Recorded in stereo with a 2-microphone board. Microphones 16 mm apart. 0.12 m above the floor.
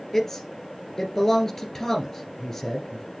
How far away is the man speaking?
About 2 m.